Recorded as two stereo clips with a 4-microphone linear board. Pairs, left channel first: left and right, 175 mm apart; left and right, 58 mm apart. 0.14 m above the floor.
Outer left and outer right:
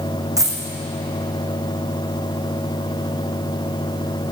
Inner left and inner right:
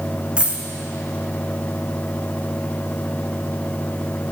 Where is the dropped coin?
20° right (ahead or behind), 1.0 m.